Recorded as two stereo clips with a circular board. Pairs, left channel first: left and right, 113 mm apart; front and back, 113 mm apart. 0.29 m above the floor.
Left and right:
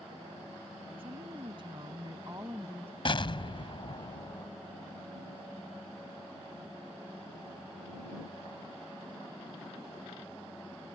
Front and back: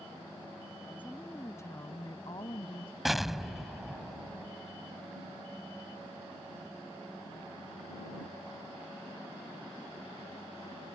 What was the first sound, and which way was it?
A woman speaking, 70° right.